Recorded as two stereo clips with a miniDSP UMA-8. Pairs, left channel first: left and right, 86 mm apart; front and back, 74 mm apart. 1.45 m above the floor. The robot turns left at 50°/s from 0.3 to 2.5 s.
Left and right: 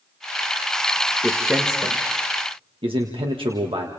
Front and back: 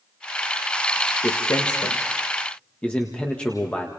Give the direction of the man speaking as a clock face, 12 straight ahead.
12 o'clock.